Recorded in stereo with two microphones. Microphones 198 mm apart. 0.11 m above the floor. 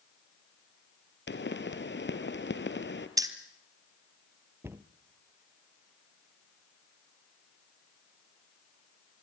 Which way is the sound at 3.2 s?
15° right (ahead or behind).